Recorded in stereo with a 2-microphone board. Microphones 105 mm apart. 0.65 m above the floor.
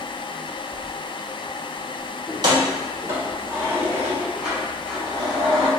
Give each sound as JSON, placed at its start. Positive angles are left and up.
{"t": 2.3, "sound": "keys jangling", "side_deg": -45, "distance_m": 1.3}